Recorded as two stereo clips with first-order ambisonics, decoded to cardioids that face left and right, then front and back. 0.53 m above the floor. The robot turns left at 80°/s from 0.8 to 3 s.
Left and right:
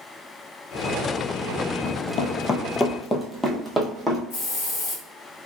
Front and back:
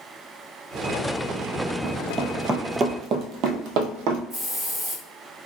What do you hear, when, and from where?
1.8 s running footsteps: 140° left, 0.7 m; by 4.2 s 175° right, 1.1 m
4.3 s a hiss: 105° left, 1.4 m